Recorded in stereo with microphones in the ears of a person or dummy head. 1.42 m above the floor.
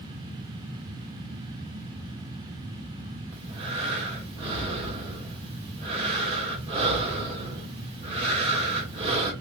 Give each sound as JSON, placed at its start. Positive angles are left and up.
{"t": 3.3, "sound": "breathing", "side_deg": -30, "distance_m": 2.0}